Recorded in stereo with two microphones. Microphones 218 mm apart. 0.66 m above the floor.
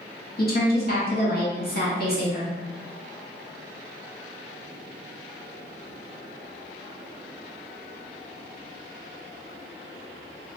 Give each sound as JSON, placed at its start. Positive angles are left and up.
{"t": 0.4, "sound": "a woman speaking", "side_deg": 45, "distance_m": 1.3}